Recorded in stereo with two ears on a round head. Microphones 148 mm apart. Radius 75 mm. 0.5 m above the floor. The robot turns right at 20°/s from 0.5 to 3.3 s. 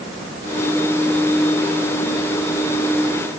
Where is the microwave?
I don't hear a microwave.